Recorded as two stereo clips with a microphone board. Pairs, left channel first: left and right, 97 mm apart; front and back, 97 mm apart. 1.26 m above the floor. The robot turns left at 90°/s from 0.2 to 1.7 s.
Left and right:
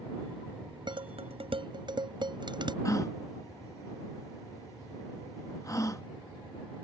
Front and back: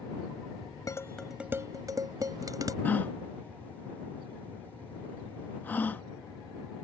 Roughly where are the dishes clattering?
Ahead right.